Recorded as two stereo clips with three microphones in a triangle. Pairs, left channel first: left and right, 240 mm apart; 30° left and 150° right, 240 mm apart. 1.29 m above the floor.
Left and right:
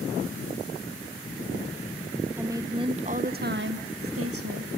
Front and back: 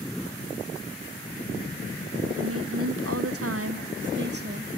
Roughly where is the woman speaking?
Behind.